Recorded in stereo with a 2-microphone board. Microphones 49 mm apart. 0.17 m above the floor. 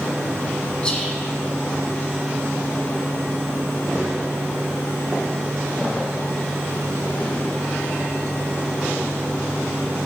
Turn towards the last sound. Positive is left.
turn(degrees=20)  # may be behind; listen again after turning